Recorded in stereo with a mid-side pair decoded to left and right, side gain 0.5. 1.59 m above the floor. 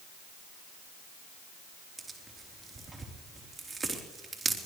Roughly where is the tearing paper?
Ahead right.